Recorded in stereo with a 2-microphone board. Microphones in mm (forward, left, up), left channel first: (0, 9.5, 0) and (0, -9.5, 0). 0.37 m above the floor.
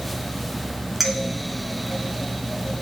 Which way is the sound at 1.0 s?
15° right (ahead or behind).